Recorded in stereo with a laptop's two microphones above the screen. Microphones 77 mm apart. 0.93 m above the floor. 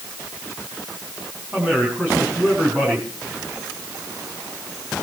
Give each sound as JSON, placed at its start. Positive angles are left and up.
{"t": 1.5, "sound": "a man speaking", "side_deg": -25, "distance_m": 7.0}